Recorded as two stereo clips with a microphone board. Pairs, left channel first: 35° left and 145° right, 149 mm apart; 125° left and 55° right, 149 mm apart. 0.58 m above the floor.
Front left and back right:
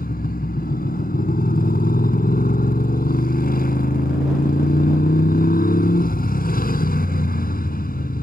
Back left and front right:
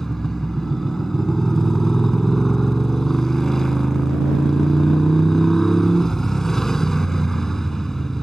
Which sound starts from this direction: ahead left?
A motorcycle, at 0.0 s.